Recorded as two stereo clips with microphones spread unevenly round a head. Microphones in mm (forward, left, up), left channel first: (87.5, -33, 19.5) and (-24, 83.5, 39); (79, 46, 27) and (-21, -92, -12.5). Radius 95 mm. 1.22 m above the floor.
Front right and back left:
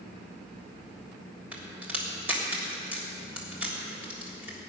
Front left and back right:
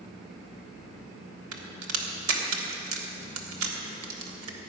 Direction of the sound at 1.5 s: 145° right.